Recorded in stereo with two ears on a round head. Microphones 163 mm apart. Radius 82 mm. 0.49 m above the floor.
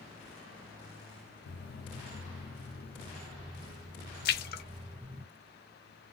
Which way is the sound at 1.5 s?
60° left (ahead or behind).